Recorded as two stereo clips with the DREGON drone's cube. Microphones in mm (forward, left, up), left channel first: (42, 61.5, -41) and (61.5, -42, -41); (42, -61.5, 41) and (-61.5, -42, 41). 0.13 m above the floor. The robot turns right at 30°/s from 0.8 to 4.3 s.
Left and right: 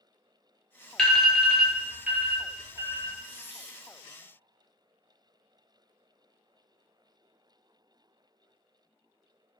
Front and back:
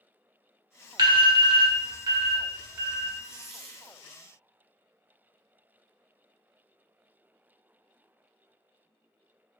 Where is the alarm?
175° left, 0.9 m; by 3.1 s 120° right, 0.9 m.